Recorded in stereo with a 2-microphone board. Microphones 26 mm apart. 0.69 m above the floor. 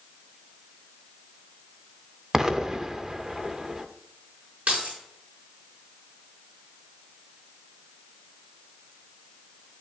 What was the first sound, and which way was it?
An explosion, 25° right (ahead or behind).